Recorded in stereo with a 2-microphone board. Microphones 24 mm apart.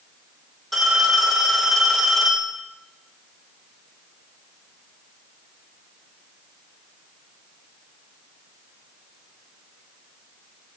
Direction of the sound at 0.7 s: 5° left (ahead or behind).